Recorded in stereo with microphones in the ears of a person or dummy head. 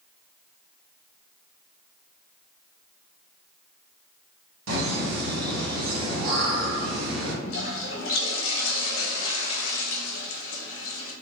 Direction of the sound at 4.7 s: 70° right (ahead or behind).